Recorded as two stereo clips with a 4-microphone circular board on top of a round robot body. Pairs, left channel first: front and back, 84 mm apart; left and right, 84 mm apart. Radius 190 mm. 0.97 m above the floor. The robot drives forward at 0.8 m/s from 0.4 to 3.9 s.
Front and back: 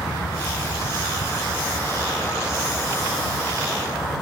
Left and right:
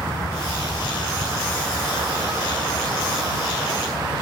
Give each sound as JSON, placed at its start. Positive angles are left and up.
{"t": 0.0, "sound": "a vehicle", "azimuth_deg": -40}